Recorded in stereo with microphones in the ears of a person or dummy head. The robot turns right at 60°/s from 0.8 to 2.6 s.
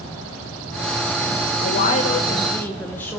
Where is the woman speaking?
115° left, 1.1 m; by 3.2 s 175° left, 1.1 m.